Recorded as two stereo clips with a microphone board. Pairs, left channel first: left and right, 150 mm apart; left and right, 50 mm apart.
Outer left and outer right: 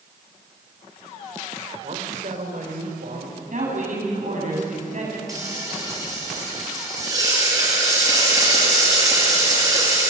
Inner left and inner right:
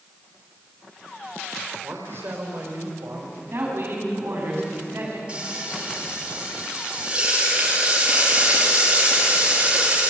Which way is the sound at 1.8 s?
55° right (ahead or behind).